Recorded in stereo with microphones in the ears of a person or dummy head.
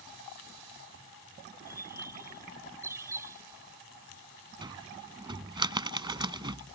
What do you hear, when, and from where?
1.7 s a bird: 15° right (ahead or behind)
4.6 s a cupboard door: 25° right (ahead or behind)